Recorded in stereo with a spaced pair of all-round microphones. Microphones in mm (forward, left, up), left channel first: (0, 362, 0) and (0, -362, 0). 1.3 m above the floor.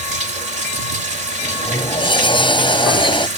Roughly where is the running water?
Right.